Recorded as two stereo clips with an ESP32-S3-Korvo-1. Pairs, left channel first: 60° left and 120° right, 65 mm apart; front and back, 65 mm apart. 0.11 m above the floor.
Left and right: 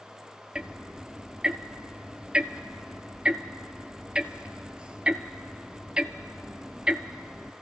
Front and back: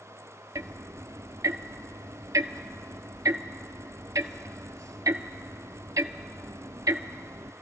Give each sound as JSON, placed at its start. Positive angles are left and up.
{"t": 0.6, "sound": "ticking", "azimuth_deg": 165, "distance_m": 0.5}